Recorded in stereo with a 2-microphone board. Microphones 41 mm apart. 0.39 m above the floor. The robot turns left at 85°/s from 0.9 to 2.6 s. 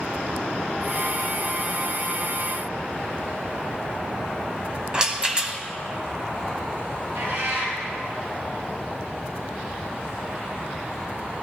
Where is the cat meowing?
85° right, 4.5 m.